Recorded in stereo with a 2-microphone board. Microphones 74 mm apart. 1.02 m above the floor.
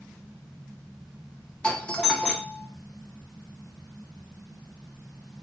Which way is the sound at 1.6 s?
10° left (ahead or behind).